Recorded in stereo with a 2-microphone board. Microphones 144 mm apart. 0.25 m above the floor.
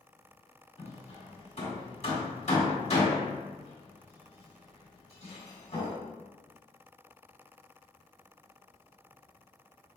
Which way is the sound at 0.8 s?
50° left (ahead or behind).